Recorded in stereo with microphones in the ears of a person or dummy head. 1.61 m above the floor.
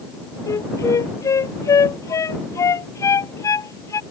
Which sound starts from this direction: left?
A flute, at 0.5 s.